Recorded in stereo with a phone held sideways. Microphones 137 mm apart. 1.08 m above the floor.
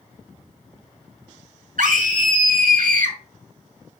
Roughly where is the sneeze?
No sneeze in this recording.